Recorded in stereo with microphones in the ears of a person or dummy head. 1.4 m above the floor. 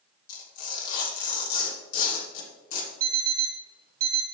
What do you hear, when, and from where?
0.3 s tearing paper: 50° left (ahead or behind), 3.5 m
3.0 s an alarm clock: 60° right (ahead or behind), 1.7 m